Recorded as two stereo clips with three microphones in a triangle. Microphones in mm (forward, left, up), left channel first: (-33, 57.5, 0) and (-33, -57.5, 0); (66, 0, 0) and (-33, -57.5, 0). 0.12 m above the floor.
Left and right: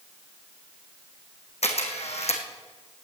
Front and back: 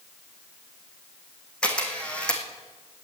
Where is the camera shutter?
110° left, 3 m.